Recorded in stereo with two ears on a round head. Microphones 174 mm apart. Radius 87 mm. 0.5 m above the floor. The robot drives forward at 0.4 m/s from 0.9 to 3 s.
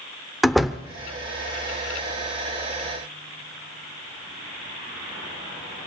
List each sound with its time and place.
0.4 s a door slam: centre (ahead or behind), 0.6 m